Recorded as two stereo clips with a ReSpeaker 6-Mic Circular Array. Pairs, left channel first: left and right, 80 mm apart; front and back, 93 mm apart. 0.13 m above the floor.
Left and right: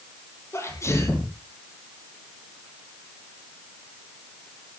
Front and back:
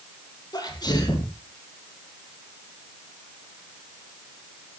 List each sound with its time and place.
0.5 s a sneeze: 40° left, 3.5 m